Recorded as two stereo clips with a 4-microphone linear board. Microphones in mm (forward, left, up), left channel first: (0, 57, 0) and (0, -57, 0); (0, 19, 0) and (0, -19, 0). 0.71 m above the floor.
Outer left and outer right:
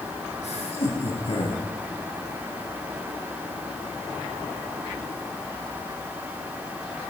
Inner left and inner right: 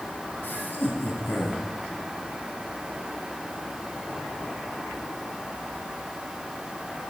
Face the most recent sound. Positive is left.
turn(degrees=50)  # may be behind; listen again after turning